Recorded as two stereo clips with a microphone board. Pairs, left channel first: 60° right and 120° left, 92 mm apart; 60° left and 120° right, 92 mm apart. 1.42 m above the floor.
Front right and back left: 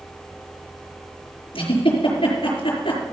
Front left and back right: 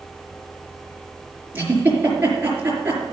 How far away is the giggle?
About 4.5 m.